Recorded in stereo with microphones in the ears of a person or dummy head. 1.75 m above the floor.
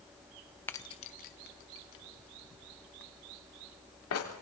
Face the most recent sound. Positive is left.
turn(degrees=80)